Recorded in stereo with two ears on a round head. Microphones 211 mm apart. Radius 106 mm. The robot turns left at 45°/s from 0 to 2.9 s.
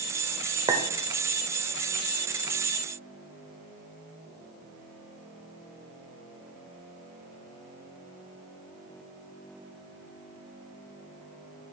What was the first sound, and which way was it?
A clink, 20° right (ahead or behind).